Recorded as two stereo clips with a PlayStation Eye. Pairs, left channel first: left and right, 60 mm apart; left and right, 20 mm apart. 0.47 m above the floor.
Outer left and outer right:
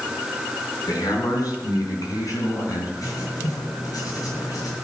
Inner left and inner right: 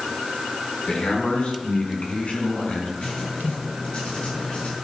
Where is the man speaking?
75° left (ahead or behind), 5 m; by 2.9 s 70° left (ahead or behind), 5 m.